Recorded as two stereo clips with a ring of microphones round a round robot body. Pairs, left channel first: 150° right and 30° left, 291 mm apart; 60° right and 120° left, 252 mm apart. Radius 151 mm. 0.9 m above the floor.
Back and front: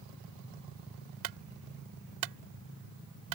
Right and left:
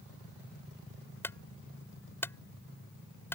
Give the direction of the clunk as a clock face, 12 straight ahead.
11 o'clock.